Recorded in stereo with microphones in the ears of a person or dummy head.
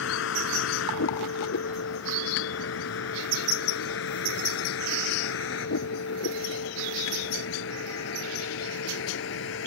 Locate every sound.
0.0 s a vehicle: 80° left